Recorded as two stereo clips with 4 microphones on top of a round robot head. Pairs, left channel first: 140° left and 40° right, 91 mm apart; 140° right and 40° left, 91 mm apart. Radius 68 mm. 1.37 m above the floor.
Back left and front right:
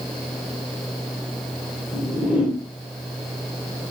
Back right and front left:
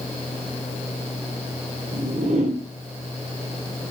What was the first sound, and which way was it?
A whoosh, 40° left.